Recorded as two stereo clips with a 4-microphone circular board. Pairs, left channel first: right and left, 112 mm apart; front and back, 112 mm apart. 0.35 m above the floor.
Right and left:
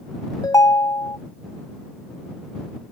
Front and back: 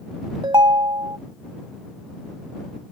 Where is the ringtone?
140° right.